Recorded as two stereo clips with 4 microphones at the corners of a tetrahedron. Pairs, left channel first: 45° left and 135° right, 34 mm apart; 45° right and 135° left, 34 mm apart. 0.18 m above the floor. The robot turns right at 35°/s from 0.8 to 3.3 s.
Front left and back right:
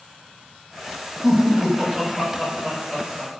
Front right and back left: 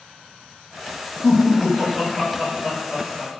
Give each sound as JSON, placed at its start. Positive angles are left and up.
{"t": 1.2, "sound": "laughter", "azimuth_deg": -135, "distance_m": 1.3}